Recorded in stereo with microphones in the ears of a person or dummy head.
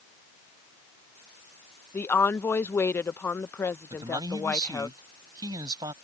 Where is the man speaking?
20° right (ahead or behind).